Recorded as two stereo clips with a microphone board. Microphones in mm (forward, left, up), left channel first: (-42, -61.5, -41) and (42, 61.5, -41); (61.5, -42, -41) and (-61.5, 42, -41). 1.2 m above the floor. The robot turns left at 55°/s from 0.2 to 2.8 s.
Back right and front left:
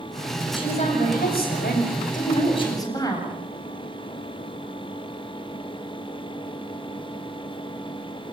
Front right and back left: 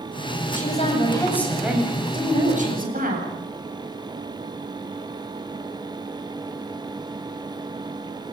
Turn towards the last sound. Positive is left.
turn(degrees=170)